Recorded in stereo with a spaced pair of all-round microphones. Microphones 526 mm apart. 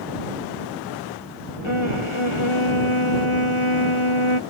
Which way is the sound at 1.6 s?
65° left (ahead or behind).